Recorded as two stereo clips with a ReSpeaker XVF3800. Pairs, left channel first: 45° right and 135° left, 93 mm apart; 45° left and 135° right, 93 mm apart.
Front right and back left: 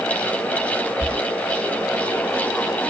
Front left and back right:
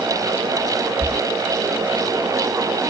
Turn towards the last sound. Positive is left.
turn(degrees=-20)